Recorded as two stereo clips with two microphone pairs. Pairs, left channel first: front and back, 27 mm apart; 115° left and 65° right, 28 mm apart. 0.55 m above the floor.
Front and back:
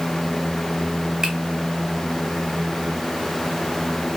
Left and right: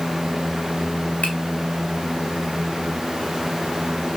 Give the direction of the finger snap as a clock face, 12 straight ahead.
8 o'clock.